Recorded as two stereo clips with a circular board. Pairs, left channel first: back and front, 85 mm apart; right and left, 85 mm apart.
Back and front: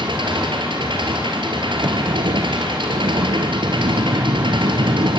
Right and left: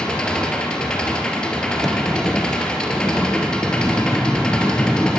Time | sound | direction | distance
0.0 | an engine running | 10° right | 3.5 m
1.8 | a sliding door | 5° right | 0.5 m